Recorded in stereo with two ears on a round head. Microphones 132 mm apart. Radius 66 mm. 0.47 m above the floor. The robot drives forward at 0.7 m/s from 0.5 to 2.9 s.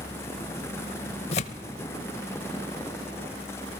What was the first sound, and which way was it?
Tearing paper, 40° left (ahead or behind).